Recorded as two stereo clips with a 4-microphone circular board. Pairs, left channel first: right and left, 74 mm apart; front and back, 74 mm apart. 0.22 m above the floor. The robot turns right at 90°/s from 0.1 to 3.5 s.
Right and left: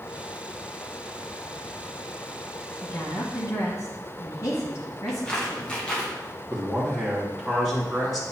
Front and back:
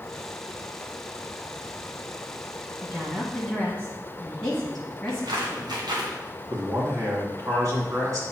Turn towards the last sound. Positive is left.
turn(degrees=180)